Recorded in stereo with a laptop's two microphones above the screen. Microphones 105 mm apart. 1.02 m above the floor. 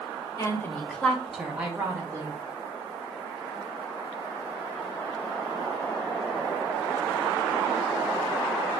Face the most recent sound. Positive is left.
turn(degrees=-25)  # may be behind; listen again after turning